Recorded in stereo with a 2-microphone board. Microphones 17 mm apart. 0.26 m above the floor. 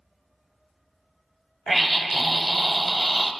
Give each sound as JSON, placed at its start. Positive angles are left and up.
{"t": 1.7, "sound": "a scream", "side_deg": 0, "distance_m": 1.2}